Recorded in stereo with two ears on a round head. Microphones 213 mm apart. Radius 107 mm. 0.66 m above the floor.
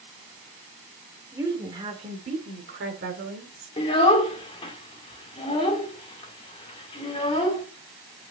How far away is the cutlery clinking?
No cutlery clinking in this recording.